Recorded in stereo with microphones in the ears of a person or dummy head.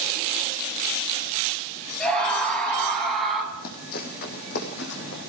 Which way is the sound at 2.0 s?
Centre (ahead or behind).